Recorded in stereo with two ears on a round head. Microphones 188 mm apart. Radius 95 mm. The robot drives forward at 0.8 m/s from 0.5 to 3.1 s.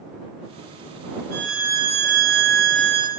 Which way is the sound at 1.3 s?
35° right (ahead or behind).